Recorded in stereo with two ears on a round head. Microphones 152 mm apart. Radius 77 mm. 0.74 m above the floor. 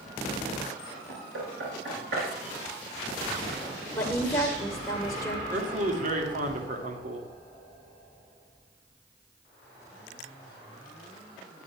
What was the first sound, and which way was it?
Knocking, 75° right (ahead or behind).